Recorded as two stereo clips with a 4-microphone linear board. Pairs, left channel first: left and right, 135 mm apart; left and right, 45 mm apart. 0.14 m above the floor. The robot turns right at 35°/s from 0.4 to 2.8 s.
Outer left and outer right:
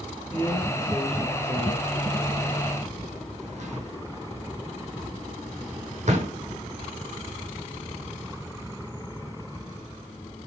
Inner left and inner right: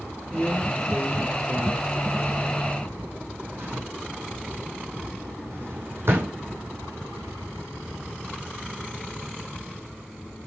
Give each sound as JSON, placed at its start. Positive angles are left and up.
{"t": 0.3, "sound": "a drawer", "side_deg": 20, "distance_m": 4.5}